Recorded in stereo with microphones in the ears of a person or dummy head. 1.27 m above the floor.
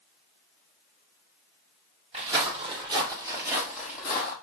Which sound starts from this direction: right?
Footsteps, at 2.1 s.